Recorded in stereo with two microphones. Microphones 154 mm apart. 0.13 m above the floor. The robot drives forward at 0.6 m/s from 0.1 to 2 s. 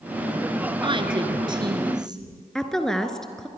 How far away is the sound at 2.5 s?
About 1.5 m.